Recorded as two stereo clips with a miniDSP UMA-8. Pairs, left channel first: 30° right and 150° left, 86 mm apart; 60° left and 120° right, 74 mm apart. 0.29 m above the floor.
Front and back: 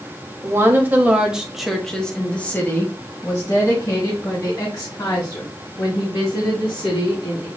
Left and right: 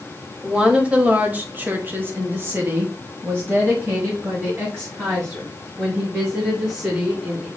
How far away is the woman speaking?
About 1.6 m.